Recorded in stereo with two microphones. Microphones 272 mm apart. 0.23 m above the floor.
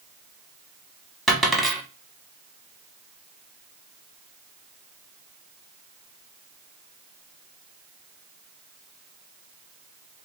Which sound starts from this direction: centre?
A dropped coin, at 1.3 s.